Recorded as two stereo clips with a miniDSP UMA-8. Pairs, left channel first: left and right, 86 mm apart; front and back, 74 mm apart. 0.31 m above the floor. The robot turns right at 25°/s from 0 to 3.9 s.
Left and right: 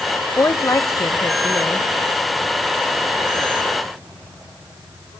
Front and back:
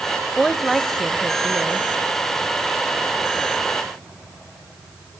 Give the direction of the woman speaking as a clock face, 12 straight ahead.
9 o'clock.